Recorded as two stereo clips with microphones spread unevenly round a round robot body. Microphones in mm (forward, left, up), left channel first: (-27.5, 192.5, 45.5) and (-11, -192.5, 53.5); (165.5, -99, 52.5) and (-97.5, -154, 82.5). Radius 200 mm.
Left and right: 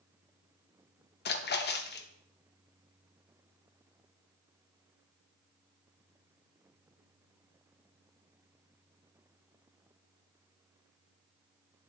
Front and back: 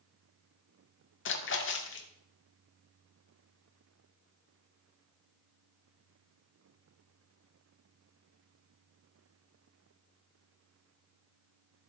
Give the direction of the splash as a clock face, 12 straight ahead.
11 o'clock.